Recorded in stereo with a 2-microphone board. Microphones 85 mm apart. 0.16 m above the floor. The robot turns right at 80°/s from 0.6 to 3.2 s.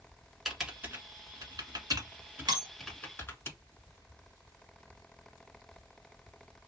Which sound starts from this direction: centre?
Typing on a keyboard, at 0.5 s.